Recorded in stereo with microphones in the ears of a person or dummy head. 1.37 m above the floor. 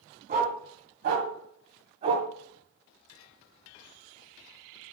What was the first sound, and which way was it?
A dog barking, 40° right (ahead or behind).